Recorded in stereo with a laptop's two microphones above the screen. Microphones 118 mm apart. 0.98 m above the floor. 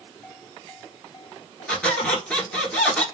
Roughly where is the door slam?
No door slam in this recording.